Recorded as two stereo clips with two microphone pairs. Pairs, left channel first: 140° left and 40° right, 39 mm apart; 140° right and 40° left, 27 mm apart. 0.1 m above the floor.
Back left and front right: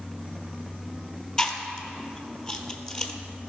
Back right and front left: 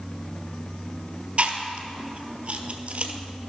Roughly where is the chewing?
Left.